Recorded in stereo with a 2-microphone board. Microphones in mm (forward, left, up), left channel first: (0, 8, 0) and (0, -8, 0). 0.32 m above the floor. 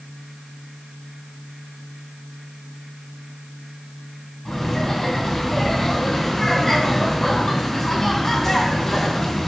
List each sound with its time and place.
4.5 s laughter: 20° left (ahead or behind), 3.5 m